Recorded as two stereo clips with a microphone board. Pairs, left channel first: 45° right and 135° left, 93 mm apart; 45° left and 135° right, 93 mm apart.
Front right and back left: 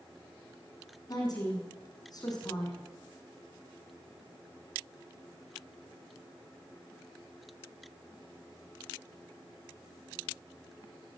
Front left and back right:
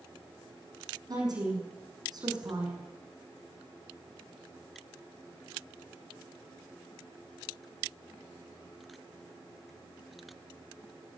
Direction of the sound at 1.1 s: 90° right.